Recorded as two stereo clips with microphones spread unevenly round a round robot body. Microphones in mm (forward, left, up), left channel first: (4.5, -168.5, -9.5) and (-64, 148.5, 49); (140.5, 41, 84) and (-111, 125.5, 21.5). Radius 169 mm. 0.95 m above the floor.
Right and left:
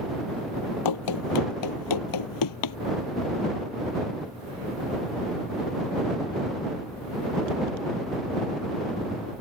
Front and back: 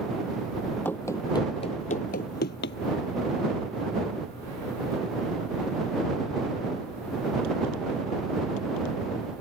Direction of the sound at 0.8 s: 95° right.